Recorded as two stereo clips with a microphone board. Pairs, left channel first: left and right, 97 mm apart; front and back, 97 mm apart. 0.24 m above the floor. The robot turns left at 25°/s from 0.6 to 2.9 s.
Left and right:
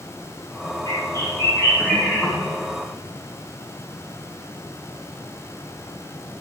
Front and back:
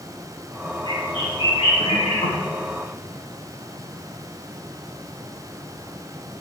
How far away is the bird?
About 4.5 m.